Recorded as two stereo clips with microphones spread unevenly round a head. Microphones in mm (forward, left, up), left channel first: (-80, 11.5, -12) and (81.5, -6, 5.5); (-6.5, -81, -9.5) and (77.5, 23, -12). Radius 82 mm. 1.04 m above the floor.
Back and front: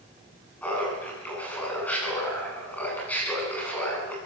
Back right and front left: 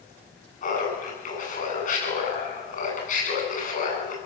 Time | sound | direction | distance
0.6 | laughter | 105° right | 9.5 m